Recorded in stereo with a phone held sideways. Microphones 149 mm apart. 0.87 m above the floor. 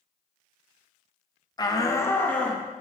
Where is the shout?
25° left (ahead or behind), 0.8 m; by 2.6 s 5° left (ahead or behind), 1.4 m.